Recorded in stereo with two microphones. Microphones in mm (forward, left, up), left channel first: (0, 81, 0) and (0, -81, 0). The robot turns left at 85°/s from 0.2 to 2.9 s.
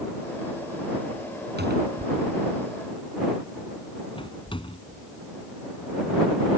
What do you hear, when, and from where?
1.6 s a cupboard door: 80° right; by 5.1 s 30° left (ahead or behind)